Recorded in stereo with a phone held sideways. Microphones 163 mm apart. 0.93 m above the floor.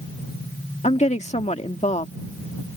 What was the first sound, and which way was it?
A woman speaking, 40° left (ahead or behind).